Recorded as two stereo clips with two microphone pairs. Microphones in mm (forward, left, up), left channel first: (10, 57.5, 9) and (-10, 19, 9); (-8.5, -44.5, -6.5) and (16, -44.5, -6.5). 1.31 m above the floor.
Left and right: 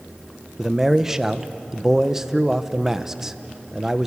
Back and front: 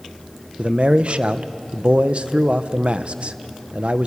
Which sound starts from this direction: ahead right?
A man speaking, at 0.6 s.